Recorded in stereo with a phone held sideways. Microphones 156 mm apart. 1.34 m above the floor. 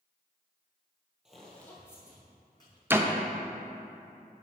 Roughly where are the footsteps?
Centre.